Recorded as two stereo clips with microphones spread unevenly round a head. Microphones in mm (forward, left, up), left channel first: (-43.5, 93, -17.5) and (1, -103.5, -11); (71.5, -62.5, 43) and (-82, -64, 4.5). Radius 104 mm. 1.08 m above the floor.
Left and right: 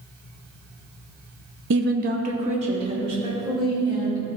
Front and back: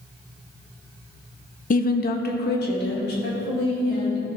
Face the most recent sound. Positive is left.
turn(degrees=-5)